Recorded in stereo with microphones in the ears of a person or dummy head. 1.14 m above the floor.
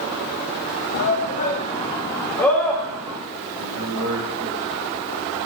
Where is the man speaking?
90° right, 6 m.